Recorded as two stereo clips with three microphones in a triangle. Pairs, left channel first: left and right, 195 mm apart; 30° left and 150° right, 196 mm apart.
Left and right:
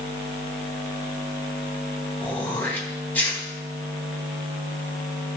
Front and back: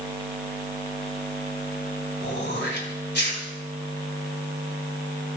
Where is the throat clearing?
10° left, 3 m.